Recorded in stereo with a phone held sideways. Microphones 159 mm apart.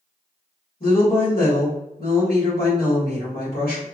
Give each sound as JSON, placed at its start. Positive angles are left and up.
{"t": 0.8, "sound": "a woman speaking", "side_deg": 80, "distance_m": 1.6}